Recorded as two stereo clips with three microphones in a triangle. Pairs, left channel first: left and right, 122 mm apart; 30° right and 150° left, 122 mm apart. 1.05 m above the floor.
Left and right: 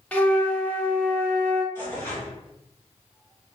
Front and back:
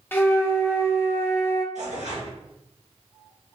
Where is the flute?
20° left, 0.5 m.